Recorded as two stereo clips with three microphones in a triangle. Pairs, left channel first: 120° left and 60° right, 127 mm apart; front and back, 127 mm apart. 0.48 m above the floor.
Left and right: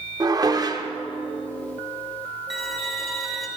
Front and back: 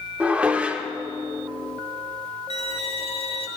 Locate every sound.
0.2 s dishes clattering: 105° right, 0.5 m
2.5 s a violin: 30° left, 0.9 m